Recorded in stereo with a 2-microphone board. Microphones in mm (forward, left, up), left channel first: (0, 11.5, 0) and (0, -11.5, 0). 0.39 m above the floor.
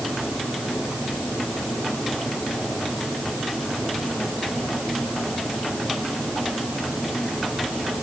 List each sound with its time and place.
Only background noise.